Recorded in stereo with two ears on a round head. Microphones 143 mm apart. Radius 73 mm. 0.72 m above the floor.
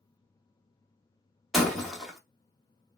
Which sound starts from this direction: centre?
Breaking glass, at 1.5 s.